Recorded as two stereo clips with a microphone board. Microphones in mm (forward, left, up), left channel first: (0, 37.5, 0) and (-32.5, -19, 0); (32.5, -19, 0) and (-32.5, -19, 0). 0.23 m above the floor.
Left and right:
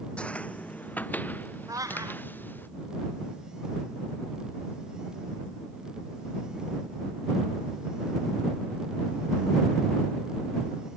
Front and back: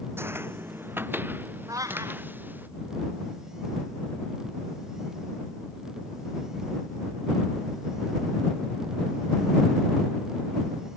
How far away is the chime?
No chime in this recording.